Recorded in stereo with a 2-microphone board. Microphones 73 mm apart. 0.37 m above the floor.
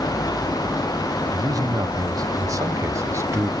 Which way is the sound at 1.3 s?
55° right (ahead or behind).